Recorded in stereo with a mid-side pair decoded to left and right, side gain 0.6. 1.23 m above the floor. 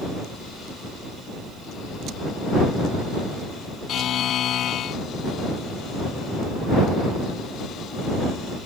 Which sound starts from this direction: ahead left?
A buzzer, at 3.9 s.